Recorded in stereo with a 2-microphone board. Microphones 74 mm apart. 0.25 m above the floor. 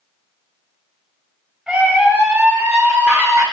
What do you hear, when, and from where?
1.7 s a scream: 15° right (ahead or behind), 2 m; by 3.4 s 35° right (ahead or behind), 3 m